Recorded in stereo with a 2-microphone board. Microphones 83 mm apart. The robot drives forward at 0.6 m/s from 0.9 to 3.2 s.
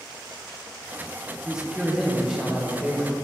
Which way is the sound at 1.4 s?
5° right (ahead or behind).